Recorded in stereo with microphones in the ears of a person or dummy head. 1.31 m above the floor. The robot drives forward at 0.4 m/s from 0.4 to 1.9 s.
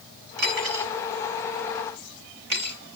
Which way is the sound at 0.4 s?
60° right (ahead or behind).